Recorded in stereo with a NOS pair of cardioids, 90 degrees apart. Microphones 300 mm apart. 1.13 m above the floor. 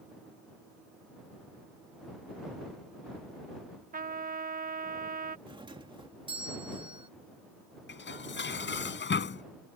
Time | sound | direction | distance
3.9 | a trumpet | 30° right | ?
5.5 | a doorbell | 15° right | ?
7.9 | dishes clattering | 40° left | ?